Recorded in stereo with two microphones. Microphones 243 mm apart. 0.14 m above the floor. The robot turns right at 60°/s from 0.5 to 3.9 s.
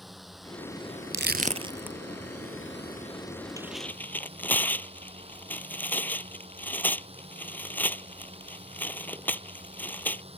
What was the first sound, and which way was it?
A drone, straight ahead.